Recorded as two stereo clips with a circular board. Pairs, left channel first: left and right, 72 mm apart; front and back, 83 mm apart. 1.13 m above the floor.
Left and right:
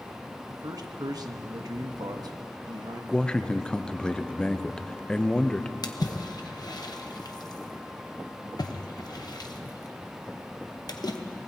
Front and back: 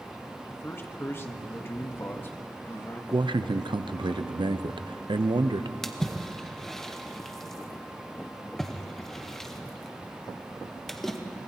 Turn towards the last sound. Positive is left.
turn(degrees=85)